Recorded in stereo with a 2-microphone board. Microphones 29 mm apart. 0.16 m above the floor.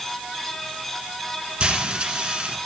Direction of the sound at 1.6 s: 35° right (ahead or behind).